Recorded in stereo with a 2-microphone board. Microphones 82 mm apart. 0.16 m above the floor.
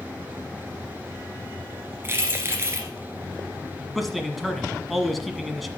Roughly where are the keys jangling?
Right.